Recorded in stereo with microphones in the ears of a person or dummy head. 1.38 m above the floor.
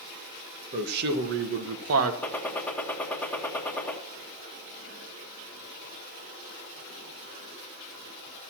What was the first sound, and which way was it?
A man speaking, 50° right (ahead or behind).